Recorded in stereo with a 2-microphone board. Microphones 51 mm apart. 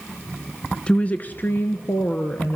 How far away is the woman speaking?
About 1.1 m.